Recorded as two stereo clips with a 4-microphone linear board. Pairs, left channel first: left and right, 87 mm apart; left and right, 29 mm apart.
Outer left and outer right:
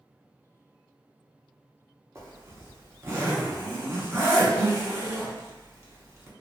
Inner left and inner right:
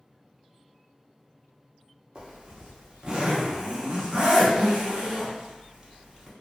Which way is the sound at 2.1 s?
30° right (ahead or behind).